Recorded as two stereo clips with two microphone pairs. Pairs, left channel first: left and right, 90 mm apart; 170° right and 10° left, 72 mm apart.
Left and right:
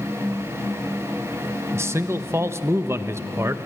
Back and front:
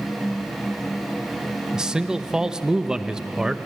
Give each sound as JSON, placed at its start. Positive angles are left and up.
{"t": 1.7, "sound": "a man speaking", "azimuth_deg": -65, "distance_m": 0.8}